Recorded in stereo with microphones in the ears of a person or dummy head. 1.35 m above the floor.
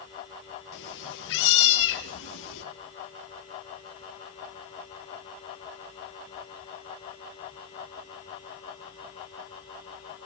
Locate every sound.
0.7 s a cat meowing: 60° left (ahead or behind), 3.5 m; by 2.6 s 70° left (ahead or behind), 4 m